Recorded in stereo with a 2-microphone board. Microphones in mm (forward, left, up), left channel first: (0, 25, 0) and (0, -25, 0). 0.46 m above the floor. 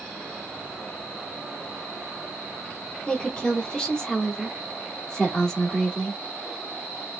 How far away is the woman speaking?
About 1.1 m.